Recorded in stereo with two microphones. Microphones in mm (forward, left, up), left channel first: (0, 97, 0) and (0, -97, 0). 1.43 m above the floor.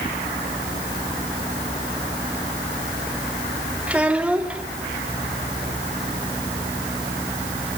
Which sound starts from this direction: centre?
A child speaking, at 3.9 s.